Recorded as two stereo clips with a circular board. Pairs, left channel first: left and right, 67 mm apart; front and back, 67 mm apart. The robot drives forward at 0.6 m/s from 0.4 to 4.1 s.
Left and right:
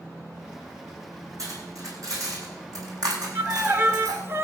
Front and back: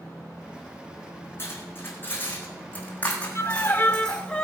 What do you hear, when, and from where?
1.4 s cutlery clinking: 55° right, 4.5 m; by 4.2 s 75° right, 3.5 m
3.4 s a violin: 40° right, 1.1 m; by 4.5 s 70° right, 0.9 m